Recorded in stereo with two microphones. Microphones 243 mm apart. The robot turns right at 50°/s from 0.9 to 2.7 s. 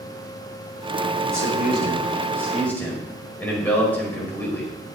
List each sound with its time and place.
1.3 s a man speaking: 65° right, 5 m; by 4.7 s 5° left, 5 m